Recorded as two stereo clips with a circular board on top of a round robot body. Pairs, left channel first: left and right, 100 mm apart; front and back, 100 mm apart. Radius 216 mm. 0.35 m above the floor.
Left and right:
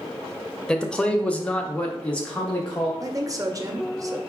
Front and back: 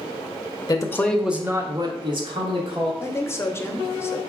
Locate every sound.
0.7 s a man speaking: 10° left, 0.9 m; by 2.9 s 170° left, 1.6 m
3.0 s a woman speaking: 55° right, 1.0 m